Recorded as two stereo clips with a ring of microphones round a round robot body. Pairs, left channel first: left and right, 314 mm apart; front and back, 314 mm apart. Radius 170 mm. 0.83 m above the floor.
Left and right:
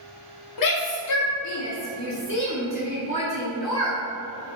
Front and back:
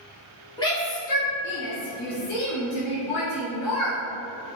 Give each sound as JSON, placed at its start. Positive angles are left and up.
{"t": 0.6, "sound": "a shout", "azimuth_deg": 80, "distance_m": 1.8}